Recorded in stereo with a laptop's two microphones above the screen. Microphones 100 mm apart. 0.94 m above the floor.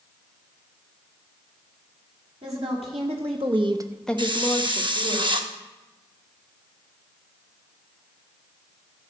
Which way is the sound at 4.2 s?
55° right (ahead or behind).